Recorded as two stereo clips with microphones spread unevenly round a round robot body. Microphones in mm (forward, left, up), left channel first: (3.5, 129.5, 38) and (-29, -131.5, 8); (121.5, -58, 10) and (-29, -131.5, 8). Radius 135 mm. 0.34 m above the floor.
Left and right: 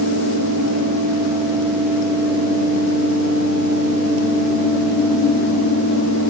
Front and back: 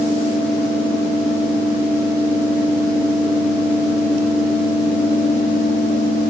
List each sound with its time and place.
Only background noise.